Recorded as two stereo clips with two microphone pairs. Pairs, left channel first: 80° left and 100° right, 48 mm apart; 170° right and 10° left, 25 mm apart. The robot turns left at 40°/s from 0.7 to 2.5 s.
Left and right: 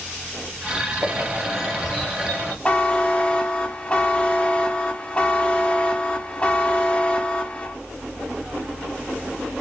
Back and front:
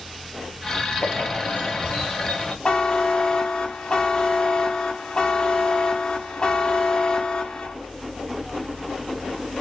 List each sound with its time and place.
1.0 s a bird: 160° right, 2 m; by 2.5 s 140° left, 2 m
2.6 s a buzzer: 145° left, 0.6 m